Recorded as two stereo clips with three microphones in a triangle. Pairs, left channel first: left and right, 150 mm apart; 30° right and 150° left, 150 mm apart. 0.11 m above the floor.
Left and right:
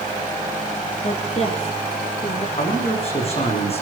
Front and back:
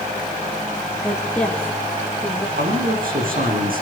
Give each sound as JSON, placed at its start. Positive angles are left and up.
{"t": 1.0, "sound": "a woman speaking", "azimuth_deg": 55, "distance_m": 4.0}
{"t": 2.6, "sound": "a man speaking", "azimuth_deg": 135, "distance_m": 9.0}